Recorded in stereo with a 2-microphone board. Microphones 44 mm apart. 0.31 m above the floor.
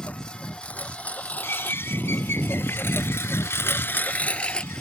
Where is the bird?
70° left (ahead or behind).